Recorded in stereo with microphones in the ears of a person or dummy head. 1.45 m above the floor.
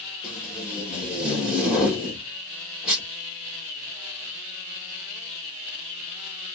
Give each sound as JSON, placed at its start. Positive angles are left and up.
{"t": 0.2, "sound": "tape being pulled", "side_deg": -10, "distance_m": 2.5}